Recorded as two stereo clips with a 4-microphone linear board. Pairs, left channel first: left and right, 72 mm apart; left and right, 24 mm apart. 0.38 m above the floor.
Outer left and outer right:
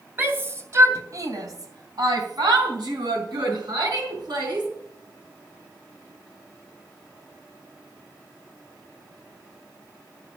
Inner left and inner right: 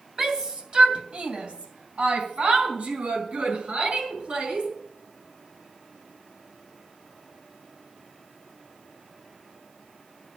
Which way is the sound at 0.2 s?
30° right (ahead or behind).